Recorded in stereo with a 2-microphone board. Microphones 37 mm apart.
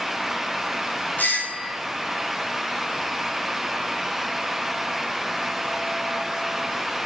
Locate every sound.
1.2 s a doorbell: 50° left (ahead or behind), 6.5 m